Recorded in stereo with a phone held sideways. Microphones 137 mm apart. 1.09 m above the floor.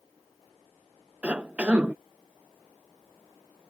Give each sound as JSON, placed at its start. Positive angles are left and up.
{"t": 1.2, "sound": "a cough", "side_deg": -10}